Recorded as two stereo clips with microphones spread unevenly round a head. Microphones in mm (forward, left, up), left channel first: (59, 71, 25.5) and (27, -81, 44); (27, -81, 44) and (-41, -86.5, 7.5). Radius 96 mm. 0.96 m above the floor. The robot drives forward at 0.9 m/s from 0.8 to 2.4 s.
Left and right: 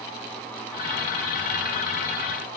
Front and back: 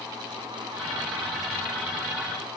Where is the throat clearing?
I don't hear throat clearing.